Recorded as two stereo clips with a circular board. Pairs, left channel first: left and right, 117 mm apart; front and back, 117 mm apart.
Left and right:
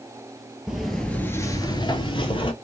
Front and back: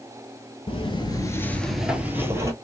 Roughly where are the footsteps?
Ahead.